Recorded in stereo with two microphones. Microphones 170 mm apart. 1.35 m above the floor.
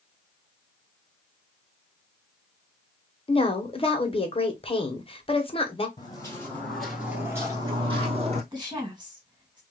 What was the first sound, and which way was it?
A woman speaking, 35° left (ahead or behind).